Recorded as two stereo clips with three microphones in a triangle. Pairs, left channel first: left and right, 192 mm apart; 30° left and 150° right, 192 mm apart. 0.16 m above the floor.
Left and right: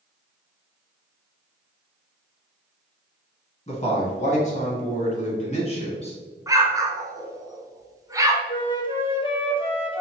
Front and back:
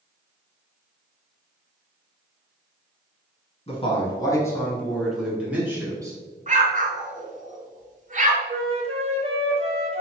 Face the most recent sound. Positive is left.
turn(degrees=155)